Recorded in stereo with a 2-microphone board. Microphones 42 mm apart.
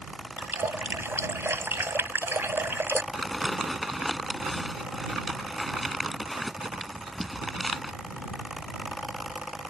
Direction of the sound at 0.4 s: 75° right (ahead or behind).